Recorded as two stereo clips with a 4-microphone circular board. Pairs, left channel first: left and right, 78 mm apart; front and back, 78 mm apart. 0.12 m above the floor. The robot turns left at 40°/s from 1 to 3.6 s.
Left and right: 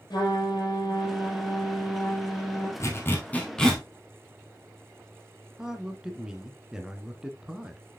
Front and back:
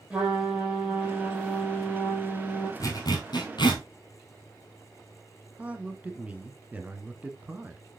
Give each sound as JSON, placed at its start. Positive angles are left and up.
{"t": 0.1, "sound": "a trumpet", "azimuth_deg": 105, "distance_m": 4.0}
{"t": 2.8, "sound": "a zipper", "azimuth_deg": 40, "distance_m": 2.5}
{"t": 5.6, "sound": "a man speaking", "azimuth_deg": -155, "distance_m": 1.3}